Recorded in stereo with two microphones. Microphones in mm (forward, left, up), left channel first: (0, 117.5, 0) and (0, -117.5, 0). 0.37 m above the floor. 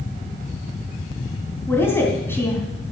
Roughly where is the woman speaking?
Centre.